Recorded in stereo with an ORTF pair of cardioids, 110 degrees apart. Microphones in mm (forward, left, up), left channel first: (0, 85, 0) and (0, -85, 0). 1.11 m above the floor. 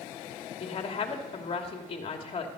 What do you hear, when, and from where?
0.6 s a woman speaking: 40° left, 2.5 m